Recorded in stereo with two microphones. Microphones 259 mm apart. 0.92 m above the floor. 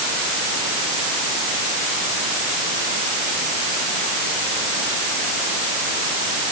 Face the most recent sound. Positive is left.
No sound to turn to.